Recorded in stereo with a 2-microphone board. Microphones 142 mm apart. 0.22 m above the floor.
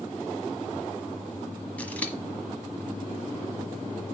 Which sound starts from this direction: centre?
Scissors, at 1.8 s.